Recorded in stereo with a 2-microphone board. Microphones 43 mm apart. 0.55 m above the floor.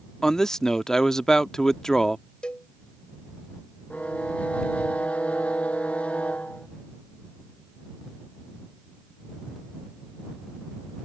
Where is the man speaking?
15° left (ahead or behind).